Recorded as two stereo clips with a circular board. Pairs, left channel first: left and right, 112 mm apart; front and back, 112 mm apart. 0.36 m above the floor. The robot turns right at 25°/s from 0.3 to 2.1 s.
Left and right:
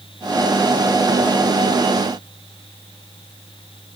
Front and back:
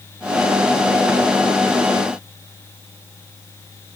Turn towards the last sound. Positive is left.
No sound to turn to.